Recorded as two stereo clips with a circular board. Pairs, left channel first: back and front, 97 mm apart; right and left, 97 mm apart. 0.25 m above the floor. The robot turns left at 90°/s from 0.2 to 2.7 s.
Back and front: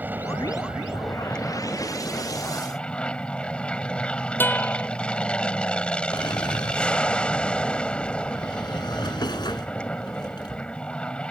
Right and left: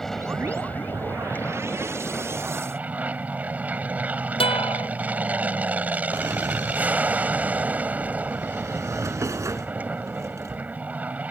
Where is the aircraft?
10° right; by 11.3 s 125° left.